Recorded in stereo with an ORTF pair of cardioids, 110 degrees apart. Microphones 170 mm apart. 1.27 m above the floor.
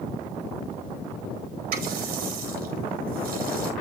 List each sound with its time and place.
1.7 s a running tap: 65° right, 4.5 m